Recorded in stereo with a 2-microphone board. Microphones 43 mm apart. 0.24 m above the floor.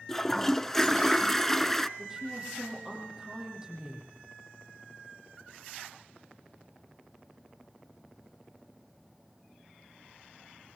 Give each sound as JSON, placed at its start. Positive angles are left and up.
{"t": 0.1, "sound": "a toilet flushing", "side_deg": 5, "distance_m": 0.9}
{"t": 2.0, "sound": "a woman speaking", "side_deg": -15, "distance_m": 9.0}